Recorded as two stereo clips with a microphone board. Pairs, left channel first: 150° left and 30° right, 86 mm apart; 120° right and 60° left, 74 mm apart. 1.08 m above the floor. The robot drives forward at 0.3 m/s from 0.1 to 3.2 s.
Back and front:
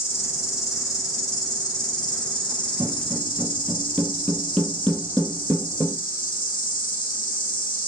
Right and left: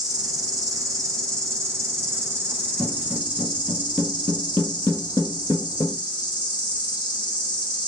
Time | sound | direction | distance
0.0 | an insect | 90° left | 1.2 m
2.8 | footsteps | 5° right | 1.2 m